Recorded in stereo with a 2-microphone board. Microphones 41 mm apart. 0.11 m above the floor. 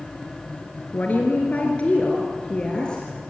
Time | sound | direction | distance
0.9 | a woman speaking | 45° left (ahead or behind) | 1.9 m